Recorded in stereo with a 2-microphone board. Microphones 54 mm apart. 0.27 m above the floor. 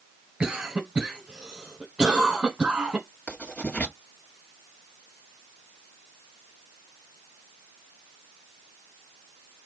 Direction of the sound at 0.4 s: 15° right (ahead or behind).